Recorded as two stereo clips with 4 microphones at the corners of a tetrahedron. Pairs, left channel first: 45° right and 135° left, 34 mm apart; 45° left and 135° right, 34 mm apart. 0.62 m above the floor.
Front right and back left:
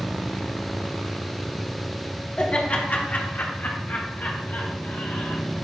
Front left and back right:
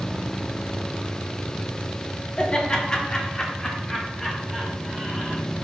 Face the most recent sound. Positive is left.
turn(degrees=-35)